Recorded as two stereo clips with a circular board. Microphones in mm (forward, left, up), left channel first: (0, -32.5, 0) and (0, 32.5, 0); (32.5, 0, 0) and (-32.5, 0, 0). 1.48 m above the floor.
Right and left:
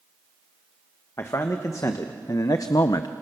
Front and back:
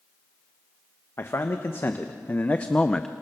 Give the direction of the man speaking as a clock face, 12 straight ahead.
2 o'clock.